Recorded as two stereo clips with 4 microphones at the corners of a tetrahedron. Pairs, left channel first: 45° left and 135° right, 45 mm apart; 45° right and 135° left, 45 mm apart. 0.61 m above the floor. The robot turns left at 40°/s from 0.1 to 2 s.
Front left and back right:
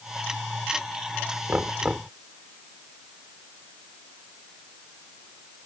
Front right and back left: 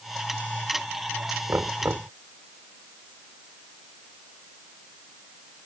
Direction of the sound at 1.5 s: 170° left.